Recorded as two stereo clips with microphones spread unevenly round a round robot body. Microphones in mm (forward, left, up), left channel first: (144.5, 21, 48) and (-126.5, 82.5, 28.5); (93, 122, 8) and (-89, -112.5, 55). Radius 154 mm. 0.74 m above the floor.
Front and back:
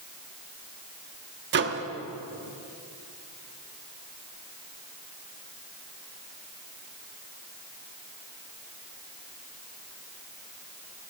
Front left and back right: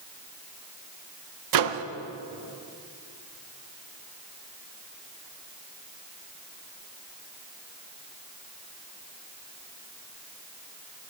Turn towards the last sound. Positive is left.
turn(degrees=-145)